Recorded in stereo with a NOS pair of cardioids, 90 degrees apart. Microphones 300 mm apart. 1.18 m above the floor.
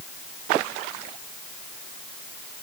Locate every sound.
Only background noise.